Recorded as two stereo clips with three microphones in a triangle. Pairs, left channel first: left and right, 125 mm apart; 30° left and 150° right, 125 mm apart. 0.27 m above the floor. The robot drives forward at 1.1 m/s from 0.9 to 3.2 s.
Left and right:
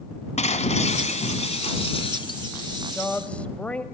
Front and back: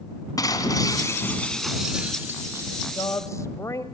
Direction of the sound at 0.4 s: 85° left.